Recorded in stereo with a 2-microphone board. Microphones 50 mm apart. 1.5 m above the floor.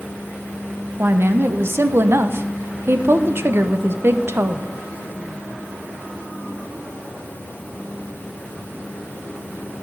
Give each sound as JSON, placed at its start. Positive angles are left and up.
{"t": 1.0, "sound": "a woman speaking", "side_deg": -55, "distance_m": 0.8}